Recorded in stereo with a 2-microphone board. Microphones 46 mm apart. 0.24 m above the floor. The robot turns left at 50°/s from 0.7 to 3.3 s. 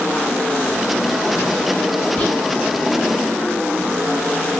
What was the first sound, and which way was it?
Whispering, 25° left (ahead or behind).